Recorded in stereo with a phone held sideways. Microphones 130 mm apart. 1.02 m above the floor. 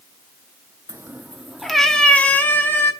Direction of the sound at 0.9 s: 25° right (ahead or behind).